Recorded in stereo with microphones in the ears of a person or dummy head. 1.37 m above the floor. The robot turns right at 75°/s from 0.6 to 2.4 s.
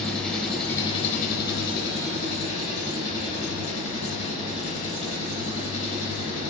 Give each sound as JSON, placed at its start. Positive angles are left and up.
{"t": 0.0, "sound": "an engine running", "azimuth_deg": 5, "distance_m": 3.0}